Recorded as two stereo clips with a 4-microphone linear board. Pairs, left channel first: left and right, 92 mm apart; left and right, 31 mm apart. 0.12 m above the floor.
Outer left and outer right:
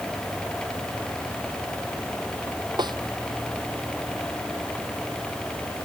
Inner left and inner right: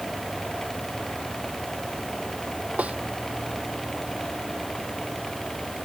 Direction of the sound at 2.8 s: 55° right (ahead or behind).